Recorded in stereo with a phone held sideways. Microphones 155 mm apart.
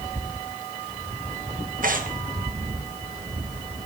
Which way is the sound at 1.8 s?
65° right (ahead or behind).